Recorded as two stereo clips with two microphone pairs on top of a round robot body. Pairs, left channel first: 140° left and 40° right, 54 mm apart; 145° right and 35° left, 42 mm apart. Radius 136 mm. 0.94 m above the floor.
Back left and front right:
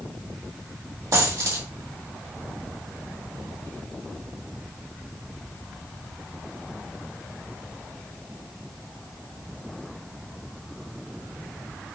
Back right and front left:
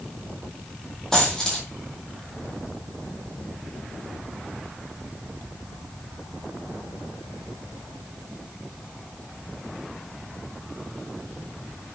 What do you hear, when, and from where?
1.1 s a dropped coin: 60° right, 4 m